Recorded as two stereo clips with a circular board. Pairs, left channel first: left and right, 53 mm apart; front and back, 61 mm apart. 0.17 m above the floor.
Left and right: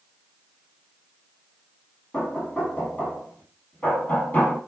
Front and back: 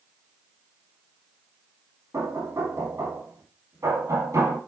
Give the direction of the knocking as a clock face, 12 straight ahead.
7 o'clock.